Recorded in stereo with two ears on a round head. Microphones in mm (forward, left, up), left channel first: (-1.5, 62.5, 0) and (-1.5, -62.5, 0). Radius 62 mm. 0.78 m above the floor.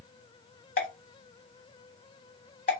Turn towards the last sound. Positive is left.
turn(degrees=55)  # may be behind; listen again after turning